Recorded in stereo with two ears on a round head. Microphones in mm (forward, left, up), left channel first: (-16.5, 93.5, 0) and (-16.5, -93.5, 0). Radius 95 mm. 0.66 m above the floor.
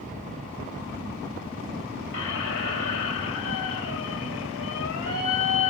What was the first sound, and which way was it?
A squeak, 60° left (ahead or behind).